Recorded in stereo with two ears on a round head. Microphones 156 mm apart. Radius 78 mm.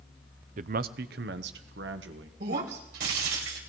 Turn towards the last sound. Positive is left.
turn(degrees=-65)  # may be behind; listen again after turning